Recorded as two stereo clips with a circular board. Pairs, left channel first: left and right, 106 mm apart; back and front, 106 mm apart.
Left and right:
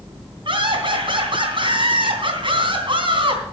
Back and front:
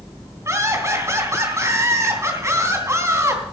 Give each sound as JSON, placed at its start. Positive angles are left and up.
{"t": 0.5, "sound": "laughter", "azimuth_deg": -60, "distance_m": 3.0}